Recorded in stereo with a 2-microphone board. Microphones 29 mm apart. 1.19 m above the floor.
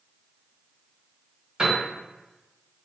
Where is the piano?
30° right (ahead or behind), 1.4 m.